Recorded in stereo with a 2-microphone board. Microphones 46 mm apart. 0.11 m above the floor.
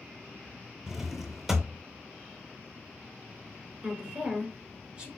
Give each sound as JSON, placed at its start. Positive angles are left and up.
{"t": 0.9, "sound": "a drawer", "side_deg": -10, "distance_m": 0.6}
{"t": 3.8, "sound": "a woman speaking", "side_deg": -25, "distance_m": 1.3}